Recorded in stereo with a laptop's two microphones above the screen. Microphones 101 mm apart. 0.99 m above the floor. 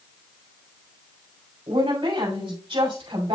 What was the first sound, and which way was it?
A woman speaking, 60° right (ahead or behind).